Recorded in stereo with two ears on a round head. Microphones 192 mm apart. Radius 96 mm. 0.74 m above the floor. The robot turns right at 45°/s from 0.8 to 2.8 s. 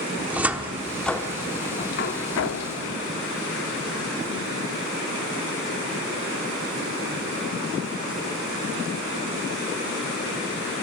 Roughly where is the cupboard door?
Centre.